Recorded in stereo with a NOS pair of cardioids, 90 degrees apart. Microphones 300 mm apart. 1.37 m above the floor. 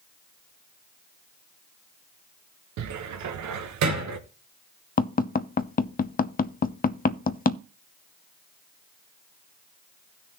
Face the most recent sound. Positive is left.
turn(degrees=30)